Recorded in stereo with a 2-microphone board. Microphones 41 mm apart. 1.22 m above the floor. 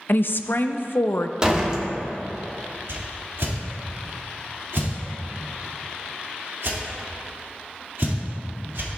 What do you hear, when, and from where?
0.1 s a woman speaking: 55° left (ahead or behind), 0.5 m
1.4 s a door slam: 25° right (ahead or behind), 1.6 m
2.9 s a whoosh: 75° right (ahead or behind), 2 m